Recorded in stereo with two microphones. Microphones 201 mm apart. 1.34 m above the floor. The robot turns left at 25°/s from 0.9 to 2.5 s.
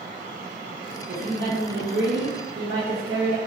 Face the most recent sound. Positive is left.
turn(degrees=-85)